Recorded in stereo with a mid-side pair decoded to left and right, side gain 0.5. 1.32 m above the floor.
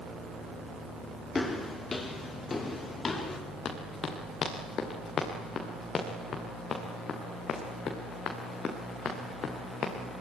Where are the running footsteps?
45° left, 6 m.